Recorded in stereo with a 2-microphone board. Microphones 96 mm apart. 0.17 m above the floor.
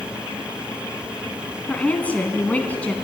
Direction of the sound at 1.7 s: 15° left (ahead or behind).